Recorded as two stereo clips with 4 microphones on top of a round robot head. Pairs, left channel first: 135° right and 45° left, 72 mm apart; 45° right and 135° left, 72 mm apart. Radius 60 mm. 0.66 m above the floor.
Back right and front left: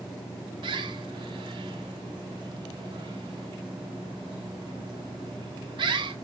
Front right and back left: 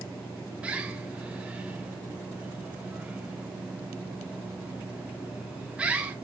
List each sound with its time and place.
0.6 s a bird: 60° left, 1.4 m